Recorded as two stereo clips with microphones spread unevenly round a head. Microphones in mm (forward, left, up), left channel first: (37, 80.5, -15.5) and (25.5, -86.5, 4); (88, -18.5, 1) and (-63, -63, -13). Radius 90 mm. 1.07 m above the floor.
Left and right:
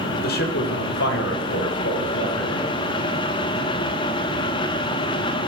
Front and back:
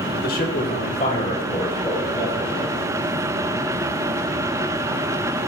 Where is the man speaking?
60° left, 3 m; by 2.7 s 90° left, 6 m.